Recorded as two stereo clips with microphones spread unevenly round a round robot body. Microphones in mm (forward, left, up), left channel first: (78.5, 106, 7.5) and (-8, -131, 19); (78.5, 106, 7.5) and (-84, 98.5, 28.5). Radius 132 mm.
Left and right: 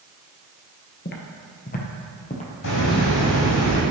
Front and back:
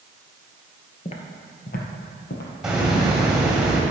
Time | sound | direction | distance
1.1 | footsteps | 40° left | 1.0 m
2.6 | a hiss | 95° left | 2 m